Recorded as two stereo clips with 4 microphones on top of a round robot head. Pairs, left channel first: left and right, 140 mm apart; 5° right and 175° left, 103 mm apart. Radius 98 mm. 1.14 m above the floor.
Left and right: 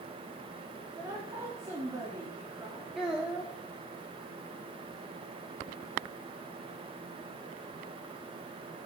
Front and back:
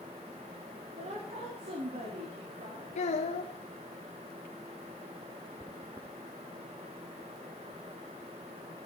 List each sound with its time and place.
1.0 s a woman speaking: 160° right, 3 m
3.0 s a child speaking: straight ahead, 0.7 m